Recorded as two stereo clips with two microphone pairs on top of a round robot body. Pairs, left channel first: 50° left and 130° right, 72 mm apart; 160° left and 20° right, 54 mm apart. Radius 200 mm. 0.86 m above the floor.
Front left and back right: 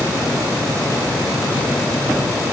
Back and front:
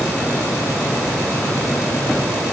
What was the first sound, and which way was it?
Only background noise.